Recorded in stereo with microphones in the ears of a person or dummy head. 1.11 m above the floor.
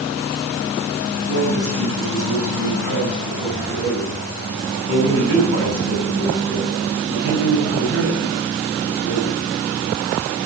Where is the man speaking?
55° right (ahead or behind), 7 m.